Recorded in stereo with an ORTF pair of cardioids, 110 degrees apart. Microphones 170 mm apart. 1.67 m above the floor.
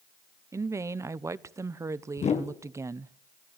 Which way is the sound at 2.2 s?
40° left.